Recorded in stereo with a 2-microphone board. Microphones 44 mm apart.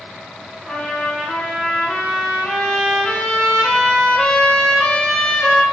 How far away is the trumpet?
About 1.4 m.